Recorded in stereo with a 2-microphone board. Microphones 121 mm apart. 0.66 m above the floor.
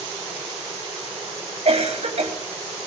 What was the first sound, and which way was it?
A cough, 60° right (ahead or behind).